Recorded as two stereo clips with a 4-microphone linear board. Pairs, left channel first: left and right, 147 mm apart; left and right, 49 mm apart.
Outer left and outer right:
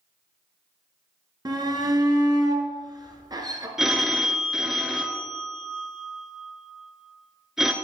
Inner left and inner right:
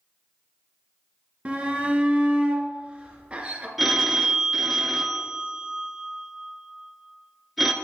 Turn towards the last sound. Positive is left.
turn(degrees=-5)  # may be behind; listen again after turning